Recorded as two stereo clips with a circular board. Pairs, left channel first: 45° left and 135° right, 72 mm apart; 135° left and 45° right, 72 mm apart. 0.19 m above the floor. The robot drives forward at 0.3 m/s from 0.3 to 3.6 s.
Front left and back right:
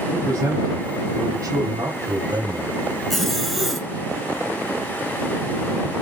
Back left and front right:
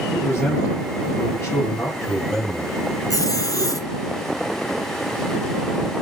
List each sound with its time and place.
0.1 s a man speaking: 175° right, 5 m
3.1 s a zipper: 130° left, 1.2 m; by 3.9 s 135° left, 1.3 m